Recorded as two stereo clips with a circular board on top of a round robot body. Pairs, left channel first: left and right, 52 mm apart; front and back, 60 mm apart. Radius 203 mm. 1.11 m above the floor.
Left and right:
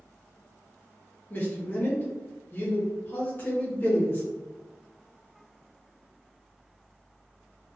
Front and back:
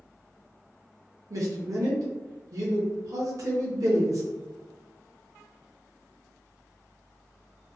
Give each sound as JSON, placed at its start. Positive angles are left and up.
{"t": 1.3, "sound": "a man speaking", "azimuth_deg": 145, "distance_m": 0.7}